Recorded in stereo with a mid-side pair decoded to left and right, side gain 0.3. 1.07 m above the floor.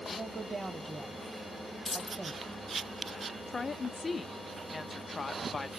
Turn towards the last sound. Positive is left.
turn(degrees=45)